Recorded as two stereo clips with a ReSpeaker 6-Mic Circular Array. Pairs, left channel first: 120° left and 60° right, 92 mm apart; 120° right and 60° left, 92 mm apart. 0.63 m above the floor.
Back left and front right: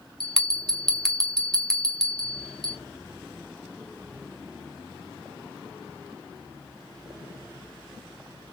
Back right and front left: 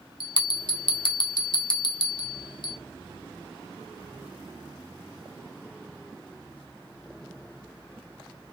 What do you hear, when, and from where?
0.2 s a bell: 155° right, 0.9 m